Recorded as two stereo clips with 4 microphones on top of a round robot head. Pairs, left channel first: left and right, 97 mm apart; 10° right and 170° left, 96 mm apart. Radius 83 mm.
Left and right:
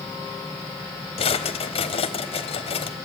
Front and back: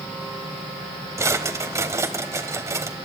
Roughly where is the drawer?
Left.